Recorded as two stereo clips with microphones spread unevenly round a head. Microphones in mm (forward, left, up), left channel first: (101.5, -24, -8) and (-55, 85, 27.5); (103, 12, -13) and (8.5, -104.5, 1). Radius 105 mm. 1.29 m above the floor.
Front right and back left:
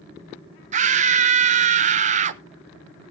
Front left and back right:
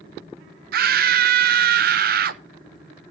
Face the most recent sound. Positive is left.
turn(degrees=-155)